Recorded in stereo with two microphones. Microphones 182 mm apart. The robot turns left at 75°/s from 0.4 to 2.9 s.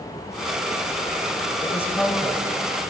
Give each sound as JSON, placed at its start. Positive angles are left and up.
{"t": 1.6, "sound": "a woman speaking", "side_deg": 20, "distance_m": 1.2}